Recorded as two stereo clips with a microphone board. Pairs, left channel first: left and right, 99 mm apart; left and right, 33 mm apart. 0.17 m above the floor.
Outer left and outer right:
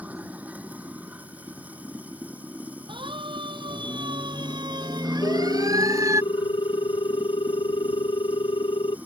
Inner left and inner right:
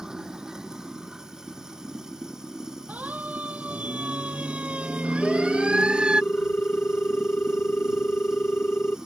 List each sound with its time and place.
0.0 s running water: 15° right (ahead or behind)
2.9 s a siren: 55° right (ahead or behind); by 6.2 s 30° right (ahead or behind)
5.2 s a ringtone: 60° left (ahead or behind)